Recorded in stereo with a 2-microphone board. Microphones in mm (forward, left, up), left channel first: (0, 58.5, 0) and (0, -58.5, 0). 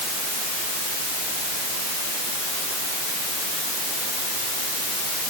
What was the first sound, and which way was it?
Only background noise.